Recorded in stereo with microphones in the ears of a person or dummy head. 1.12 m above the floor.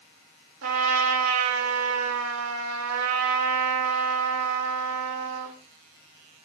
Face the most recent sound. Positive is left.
turn(degrees=-80)